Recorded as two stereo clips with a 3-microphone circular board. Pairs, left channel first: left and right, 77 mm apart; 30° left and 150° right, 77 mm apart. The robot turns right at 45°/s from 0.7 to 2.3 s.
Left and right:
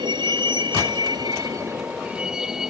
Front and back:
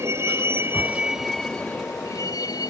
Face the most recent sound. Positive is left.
turn(degrees=-5)